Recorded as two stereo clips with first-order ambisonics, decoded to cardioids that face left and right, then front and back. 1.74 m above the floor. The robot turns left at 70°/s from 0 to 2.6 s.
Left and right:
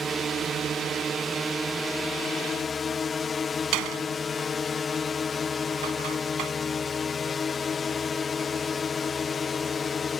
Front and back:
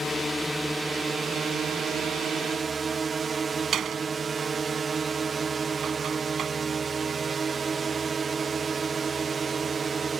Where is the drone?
45° right; by 10.2 s 135° left.